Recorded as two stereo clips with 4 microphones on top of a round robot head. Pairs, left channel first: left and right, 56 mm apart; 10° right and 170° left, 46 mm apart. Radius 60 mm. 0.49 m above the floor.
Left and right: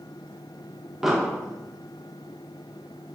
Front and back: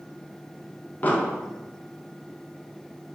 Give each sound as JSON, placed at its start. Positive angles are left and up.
{"t": 1.0, "sound": "an explosion", "azimuth_deg": -15, "distance_m": 1.1}